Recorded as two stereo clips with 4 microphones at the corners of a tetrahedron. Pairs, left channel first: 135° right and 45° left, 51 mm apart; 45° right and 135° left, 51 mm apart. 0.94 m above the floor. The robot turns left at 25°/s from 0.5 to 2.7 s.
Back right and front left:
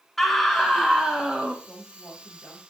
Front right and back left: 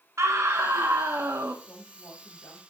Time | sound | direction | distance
0.2 | a scream | 140° left | 1.5 m
1.6 | a woman speaking | 30° right | 4 m